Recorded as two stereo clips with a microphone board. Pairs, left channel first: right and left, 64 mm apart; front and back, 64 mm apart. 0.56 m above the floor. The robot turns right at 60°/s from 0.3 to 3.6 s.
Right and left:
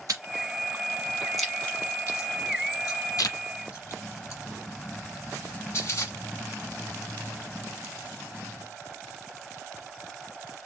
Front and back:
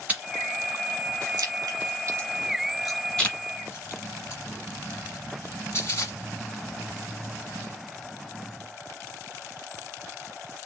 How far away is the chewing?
About 1.5 m.